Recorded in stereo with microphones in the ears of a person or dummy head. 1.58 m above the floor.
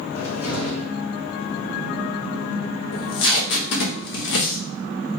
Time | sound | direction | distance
0.1 | a cupboard door | 70° left (ahead or behind) | 2 m
2.9 | tape being pulled | 65° left (ahead or behind) | 0.9 m